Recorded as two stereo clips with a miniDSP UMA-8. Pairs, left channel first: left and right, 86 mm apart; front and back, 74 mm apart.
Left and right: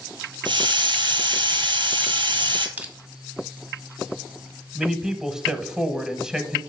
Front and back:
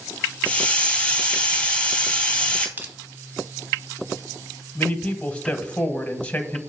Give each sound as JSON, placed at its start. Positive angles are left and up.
{"t": 0.5, "sound": "a hiss", "azimuth_deg": -75, "distance_m": 1.4}
{"t": 2.8, "sound": "crushing", "azimuth_deg": -140, "distance_m": 1.3}
{"t": 4.8, "sound": "a man speaking", "azimuth_deg": -25, "distance_m": 1.0}